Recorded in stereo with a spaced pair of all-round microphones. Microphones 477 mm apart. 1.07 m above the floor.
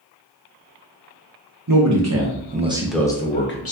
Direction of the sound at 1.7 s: 45° right (ahead or behind).